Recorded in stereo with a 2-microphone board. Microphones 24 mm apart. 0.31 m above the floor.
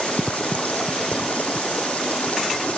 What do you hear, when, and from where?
0.0 s running water: 65° left (ahead or behind)